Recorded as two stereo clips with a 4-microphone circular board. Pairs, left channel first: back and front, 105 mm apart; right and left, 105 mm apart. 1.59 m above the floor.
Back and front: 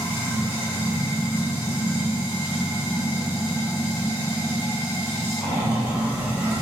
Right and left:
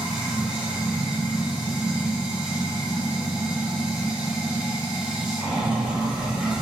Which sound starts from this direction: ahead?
Running water, at 0.0 s.